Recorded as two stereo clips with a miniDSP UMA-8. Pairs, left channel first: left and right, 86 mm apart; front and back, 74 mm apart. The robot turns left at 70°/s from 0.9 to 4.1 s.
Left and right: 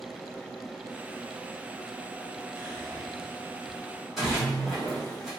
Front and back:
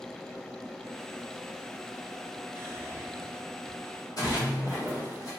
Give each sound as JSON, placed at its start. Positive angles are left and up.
{"t": 2.5, "sound": "whispering", "azimuth_deg": -160, "distance_m": 0.9}
{"t": 4.2, "sound": "a splash", "azimuth_deg": 0, "distance_m": 1.7}